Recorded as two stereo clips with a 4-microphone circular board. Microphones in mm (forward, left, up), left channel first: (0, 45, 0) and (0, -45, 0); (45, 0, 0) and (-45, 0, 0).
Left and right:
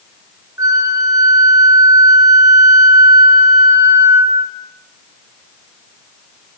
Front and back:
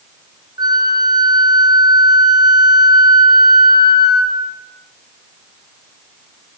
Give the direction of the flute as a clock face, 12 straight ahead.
5 o'clock.